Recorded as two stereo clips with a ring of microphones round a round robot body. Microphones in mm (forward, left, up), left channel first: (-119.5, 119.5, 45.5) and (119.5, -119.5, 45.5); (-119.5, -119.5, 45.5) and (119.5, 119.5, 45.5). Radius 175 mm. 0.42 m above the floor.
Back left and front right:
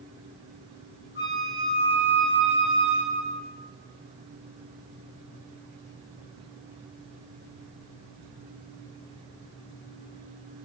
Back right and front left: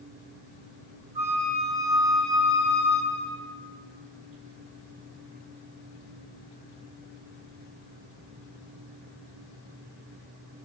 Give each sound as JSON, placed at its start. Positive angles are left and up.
{"t": 1.1, "sound": "a flute", "azimuth_deg": 35, "distance_m": 1.5}